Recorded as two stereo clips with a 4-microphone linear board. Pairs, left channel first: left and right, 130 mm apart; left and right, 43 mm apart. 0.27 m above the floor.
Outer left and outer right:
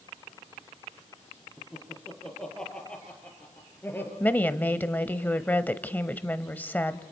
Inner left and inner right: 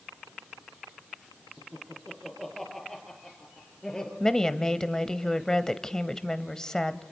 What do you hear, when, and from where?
1.6 s laughter: centre (ahead or behind), 6.5 m; by 4.1 s 15° left (ahead or behind), 5.5 m
4.2 s a woman speaking: 15° left (ahead or behind), 1.1 m